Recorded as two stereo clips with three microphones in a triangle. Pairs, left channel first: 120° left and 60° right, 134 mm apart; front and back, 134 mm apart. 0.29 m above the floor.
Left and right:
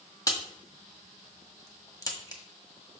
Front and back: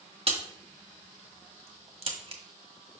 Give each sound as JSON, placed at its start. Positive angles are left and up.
{"t": 0.3, "sound": "a crack", "azimuth_deg": 175, "distance_m": 1.5}